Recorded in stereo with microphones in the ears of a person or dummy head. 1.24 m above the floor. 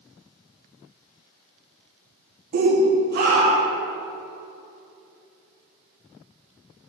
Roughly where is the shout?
Right.